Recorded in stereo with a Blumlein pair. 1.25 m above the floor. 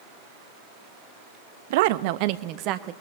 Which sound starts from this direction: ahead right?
A woman speaking, at 1.7 s.